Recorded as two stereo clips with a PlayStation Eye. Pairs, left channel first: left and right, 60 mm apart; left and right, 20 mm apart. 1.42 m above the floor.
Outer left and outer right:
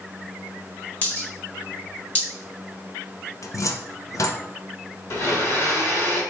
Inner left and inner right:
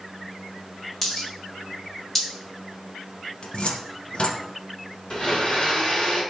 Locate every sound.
1.0 s a dropped coin: 20° left (ahead or behind), 1.2 m
3.4 s a cupboard door: 55° left (ahead or behind), 0.5 m
5.1 s a blender: 45° left (ahead or behind), 2 m